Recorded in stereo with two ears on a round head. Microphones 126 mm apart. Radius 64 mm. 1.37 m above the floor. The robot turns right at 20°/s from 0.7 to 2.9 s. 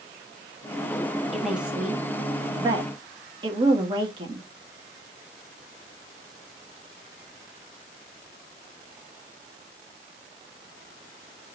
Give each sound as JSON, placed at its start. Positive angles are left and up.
{"t": 1.3, "sound": "a woman speaking", "side_deg": 0, "distance_m": 1.8}